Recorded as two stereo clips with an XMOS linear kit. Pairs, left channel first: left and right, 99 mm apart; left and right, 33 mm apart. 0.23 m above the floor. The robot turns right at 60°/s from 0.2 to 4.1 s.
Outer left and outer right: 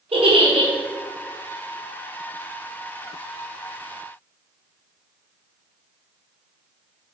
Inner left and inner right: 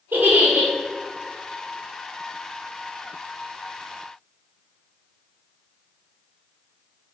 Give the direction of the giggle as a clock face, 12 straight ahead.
3 o'clock.